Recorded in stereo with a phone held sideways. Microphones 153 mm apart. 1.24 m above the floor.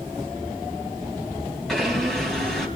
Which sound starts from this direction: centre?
A blender, at 1.7 s.